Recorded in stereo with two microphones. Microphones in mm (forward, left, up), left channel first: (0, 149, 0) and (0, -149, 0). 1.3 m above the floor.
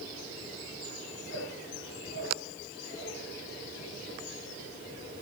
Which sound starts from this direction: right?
A squeak, at 1.1 s.